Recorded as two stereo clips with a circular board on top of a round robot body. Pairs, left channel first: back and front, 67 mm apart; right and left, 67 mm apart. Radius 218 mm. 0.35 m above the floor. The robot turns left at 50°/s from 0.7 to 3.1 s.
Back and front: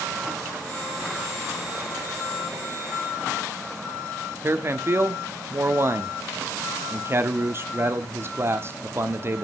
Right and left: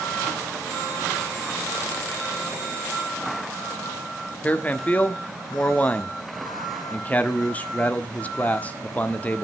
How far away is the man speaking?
About 1.7 m.